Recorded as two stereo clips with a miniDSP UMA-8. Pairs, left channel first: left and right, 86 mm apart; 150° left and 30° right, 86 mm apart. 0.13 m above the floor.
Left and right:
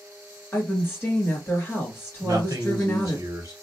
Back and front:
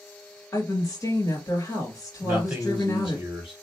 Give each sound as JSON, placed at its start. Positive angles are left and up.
{"t": 0.5, "sound": "a woman speaking", "azimuth_deg": 140, "distance_m": 1.8}
{"t": 2.2, "sound": "a man speaking", "azimuth_deg": -95, "distance_m": 1.4}